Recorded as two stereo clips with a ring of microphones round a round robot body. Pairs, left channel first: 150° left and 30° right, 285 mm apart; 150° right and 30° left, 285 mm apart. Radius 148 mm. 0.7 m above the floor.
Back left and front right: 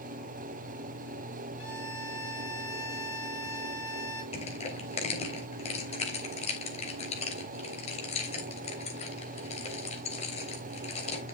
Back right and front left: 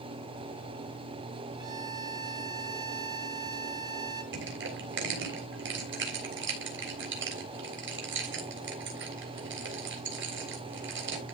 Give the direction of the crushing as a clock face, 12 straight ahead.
9 o'clock.